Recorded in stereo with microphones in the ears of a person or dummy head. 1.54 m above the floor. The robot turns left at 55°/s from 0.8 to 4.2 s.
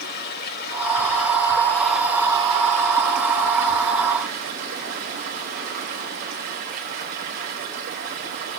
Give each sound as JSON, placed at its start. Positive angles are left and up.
{"t": 0.0, "sound": "running water", "azimuth_deg": 60, "distance_m": 3.0}